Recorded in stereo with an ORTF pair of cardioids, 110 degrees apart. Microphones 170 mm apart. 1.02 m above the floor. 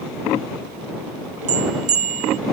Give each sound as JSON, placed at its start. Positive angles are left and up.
{"t": 1.5, "sound": "a bell", "azimuth_deg": -45}